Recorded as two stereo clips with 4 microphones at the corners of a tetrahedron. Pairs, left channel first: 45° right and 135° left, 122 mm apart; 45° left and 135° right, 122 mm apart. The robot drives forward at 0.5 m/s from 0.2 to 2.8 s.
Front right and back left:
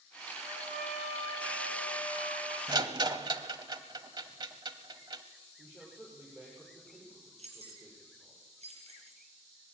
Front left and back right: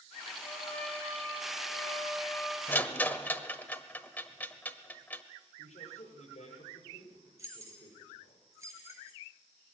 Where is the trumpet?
120° left, 8 m; by 2.6 s 130° left, 8.5 m.